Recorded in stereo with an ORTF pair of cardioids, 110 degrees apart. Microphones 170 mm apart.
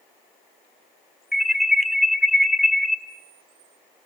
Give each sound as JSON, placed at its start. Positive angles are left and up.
{"t": 1.3, "sound": "an alarm", "azimuth_deg": 0, "distance_m": 1.3}